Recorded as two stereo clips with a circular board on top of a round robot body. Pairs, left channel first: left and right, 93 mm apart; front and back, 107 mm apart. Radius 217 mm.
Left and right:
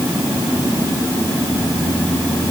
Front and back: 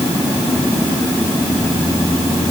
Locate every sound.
Only background noise.